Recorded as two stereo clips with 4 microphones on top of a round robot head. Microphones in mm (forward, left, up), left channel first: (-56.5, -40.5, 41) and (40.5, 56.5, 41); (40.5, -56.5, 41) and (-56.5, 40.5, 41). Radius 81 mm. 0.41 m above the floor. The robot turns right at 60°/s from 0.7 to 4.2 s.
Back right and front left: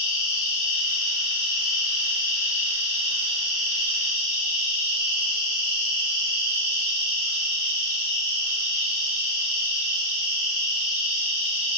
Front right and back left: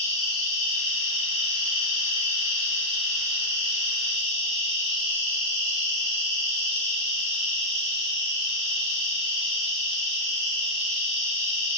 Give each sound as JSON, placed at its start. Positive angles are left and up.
{"t": 0.0, "sound": "an insect", "azimuth_deg": -100, "distance_m": 1.5}